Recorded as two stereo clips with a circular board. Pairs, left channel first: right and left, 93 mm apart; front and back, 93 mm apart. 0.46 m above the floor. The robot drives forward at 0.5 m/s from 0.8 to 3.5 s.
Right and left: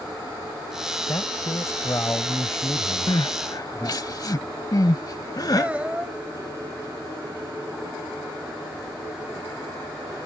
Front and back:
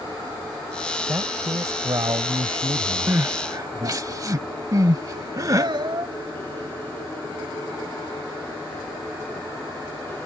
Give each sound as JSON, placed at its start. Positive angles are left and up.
{"t": 1.1, "sound": "a man speaking", "azimuth_deg": -135}
{"t": 3.1, "sound": "crying", "azimuth_deg": -120}
{"t": 5.6, "sound": "a child speaking", "azimuth_deg": 165}